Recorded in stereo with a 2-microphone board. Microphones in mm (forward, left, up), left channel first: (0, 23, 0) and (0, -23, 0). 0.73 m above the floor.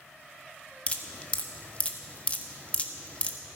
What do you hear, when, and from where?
0.9 s dripping: 25° left (ahead or behind), 1.3 m